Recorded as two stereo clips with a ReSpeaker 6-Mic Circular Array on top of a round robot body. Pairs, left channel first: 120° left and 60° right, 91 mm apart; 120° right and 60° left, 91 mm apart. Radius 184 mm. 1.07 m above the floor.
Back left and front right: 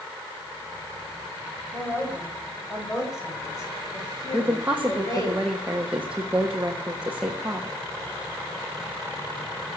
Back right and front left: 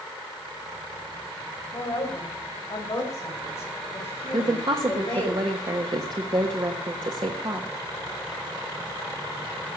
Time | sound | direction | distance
1.7 | a woman speaking | 170° right | 6 m
4.3 | a woman speaking | 20° left | 1.4 m